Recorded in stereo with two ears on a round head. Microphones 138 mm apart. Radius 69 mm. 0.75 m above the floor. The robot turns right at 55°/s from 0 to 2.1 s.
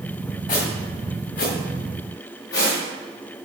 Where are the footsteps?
30° left (ahead or behind), 3 m; by 3.5 s 75° left (ahead or behind), 4.5 m.